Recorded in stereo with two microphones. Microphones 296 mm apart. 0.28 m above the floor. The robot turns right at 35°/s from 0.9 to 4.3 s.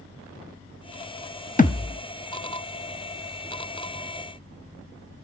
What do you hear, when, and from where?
1.6 s a thud: 25° left (ahead or behind), 0.8 m; by 2.0 s 15° left (ahead or behind), 0.8 m